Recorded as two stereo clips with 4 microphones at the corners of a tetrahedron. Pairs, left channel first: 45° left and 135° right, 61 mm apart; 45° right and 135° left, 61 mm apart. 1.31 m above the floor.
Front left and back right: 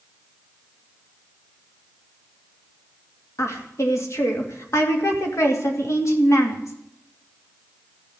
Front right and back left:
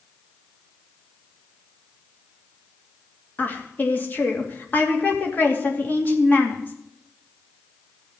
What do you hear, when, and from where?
3.4 s a woman speaking: 10° left, 2.5 m